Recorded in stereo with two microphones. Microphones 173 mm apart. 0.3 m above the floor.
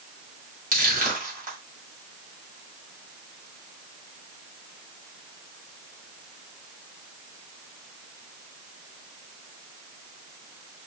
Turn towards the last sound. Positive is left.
turn(degrees=-50)  # may be behind; listen again after turning